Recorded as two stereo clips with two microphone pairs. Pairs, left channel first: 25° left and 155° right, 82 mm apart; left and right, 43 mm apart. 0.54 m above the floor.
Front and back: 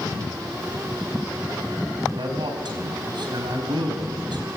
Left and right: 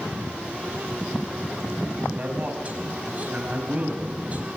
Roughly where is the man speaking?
Behind right.